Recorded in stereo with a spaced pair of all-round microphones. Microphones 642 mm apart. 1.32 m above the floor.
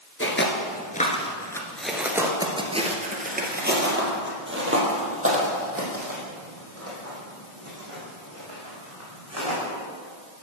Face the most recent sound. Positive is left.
turn(degrees=-25)  # may be behind; listen again after turning